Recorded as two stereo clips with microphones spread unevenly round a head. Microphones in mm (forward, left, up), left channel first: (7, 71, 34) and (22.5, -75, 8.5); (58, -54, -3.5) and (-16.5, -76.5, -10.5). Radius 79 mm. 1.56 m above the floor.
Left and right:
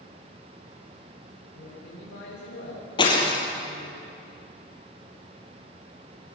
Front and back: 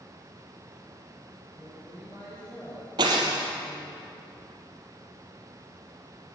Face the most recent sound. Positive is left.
turn(degrees=150)